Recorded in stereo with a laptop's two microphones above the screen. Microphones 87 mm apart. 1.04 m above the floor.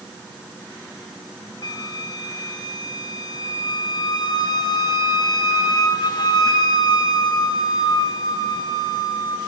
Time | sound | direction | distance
1.6 | a flute | 55° left (ahead or behind) | 1.6 m